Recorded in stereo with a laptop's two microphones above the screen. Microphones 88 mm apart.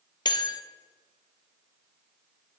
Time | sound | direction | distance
0.2 | a bell | 55° left (ahead or behind) | 0.5 m